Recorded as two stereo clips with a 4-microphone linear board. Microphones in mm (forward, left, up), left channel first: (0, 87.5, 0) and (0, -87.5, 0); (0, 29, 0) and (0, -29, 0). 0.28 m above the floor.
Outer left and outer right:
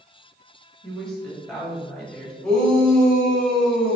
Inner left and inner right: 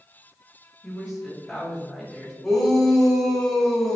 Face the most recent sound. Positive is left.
turn(degrees=5)  # may be behind; listen again after turning